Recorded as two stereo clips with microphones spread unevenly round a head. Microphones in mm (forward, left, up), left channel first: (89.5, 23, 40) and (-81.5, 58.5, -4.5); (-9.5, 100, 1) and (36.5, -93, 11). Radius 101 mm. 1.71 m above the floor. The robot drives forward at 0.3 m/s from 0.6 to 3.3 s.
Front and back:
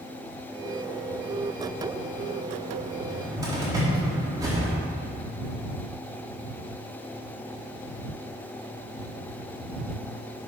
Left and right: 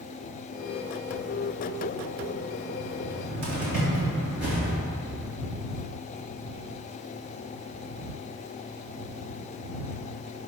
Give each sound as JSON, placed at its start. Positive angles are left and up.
{"t": 3.0, "sound": "a cupboard door", "azimuth_deg": -115, "distance_m": 3.5}